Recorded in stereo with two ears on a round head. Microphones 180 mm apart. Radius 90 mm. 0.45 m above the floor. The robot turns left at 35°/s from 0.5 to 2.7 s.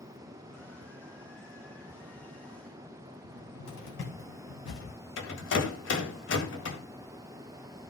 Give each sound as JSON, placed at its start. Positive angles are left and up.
{"t": 3.2, "sound": "a cupboard door", "side_deg": 65, "distance_m": 3.5}
{"t": 5.2, "sound": "a rattle", "side_deg": 65, "distance_m": 1.9}